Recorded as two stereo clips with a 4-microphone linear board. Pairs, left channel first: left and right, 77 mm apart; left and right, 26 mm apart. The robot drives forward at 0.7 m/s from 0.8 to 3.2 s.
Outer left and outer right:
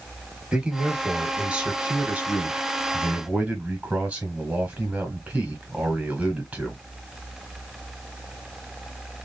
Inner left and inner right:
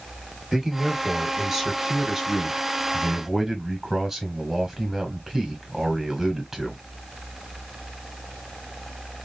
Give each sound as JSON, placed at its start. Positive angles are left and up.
{"t": 0.5, "sound": "a man speaking", "side_deg": -10, "distance_m": 1.7}